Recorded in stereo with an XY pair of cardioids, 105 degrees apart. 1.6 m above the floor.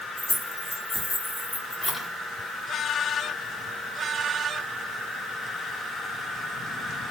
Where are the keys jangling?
10° left, 1.4 m.